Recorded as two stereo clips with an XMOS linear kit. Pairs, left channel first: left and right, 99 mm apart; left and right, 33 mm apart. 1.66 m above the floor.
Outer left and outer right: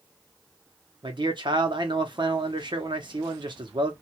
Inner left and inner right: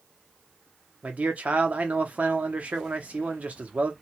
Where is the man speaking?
50° right (ahead or behind), 0.8 m.